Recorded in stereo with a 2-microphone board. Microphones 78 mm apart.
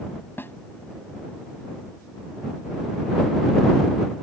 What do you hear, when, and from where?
0.4 s a snare drum: 25° left (ahead or behind)